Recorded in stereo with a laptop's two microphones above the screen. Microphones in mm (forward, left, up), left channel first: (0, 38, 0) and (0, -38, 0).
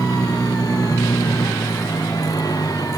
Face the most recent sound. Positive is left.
turn(degrees=55)  # may be behind; listen again after turning